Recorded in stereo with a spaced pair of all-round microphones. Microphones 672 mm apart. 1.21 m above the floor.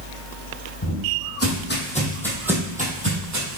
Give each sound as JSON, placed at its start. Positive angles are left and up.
{"t": 0.8, "sound": "footsteps", "side_deg": 30, "distance_m": 3.5}